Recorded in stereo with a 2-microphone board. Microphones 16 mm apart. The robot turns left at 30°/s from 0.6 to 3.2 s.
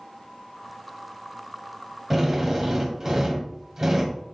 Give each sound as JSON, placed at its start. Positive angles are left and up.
{"t": 2.1, "sound": "a drill", "azimuth_deg": -45, "distance_m": 1.6}